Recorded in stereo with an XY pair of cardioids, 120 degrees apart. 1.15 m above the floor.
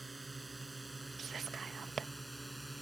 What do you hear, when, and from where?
0.0 s a drone: 10° right; by 2.8 s 5° right
1.2 s whispering: 40° right